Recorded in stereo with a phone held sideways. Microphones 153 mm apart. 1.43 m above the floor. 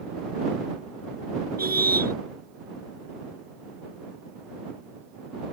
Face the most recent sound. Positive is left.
turn(degrees=-80)